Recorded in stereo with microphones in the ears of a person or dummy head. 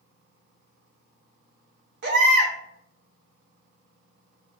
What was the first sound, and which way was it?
A baby crying, 60° right (ahead or behind).